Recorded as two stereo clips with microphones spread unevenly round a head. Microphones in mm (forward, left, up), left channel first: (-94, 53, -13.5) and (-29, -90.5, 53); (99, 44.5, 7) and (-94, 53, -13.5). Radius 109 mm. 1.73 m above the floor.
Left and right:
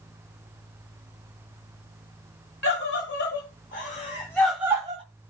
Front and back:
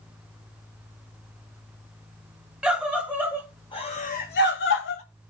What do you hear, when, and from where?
2.6 s a scream: 85° left, 2.5 m; by 5.0 s 5° right, 1.6 m